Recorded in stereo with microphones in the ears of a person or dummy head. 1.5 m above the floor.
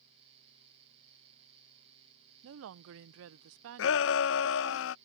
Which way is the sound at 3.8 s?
70° left (ahead or behind).